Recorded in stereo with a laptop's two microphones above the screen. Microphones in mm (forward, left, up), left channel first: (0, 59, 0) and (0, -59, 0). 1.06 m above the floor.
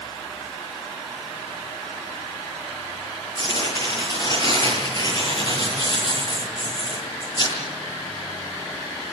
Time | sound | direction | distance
3.4 | tearing paper | 35° left (ahead or behind) | 9.5 m